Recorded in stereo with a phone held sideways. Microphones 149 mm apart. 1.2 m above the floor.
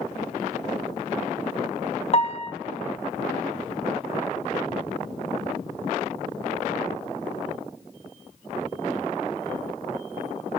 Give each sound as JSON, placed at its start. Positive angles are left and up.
{"t": 2.1, "sound": "a piano", "side_deg": 45, "distance_m": 0.6}